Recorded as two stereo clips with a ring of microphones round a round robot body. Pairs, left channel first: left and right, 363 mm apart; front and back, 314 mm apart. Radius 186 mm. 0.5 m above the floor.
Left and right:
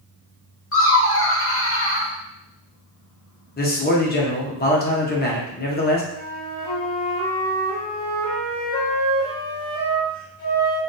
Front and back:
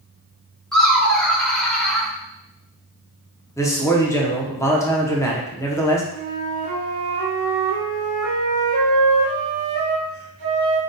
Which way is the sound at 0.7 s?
85° left.